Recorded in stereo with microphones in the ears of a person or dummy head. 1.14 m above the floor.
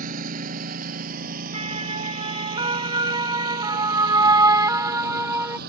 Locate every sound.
0.0 s a lawn mower: 45° right (ahead or behind); by 5.7 s 55° right (ahead or behind)
1.5 s a siren: 30° right (ahead or behind); by 5.6 s 10° right (ahead or behind)